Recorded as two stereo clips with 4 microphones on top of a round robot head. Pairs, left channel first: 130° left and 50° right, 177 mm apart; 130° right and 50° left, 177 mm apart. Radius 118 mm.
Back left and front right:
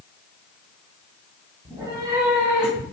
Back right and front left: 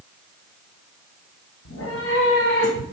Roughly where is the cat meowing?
Behind right.